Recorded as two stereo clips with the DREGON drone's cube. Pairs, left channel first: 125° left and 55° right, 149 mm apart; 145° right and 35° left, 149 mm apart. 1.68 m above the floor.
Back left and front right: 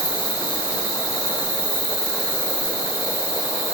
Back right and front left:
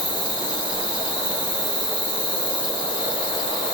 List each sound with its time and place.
0.0 s an insect: 75° left, 0.8 m